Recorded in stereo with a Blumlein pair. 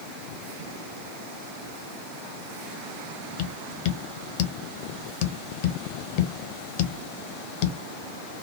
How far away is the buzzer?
I don't hear a buzzer.